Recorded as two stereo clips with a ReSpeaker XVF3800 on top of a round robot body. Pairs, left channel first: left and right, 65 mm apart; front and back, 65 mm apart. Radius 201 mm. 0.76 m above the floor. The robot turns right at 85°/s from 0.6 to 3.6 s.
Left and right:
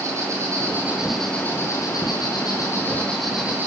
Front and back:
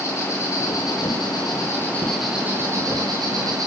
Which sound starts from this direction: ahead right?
An insect, at 0.0 s.